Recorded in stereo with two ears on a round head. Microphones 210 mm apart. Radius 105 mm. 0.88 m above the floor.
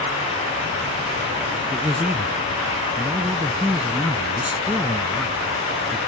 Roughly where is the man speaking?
Centre.